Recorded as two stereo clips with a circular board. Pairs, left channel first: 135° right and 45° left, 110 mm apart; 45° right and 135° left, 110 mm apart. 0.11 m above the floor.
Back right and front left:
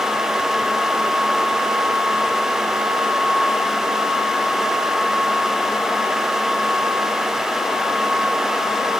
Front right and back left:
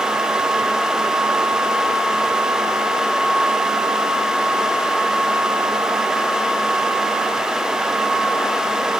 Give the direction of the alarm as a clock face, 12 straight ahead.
No alarm in this recording.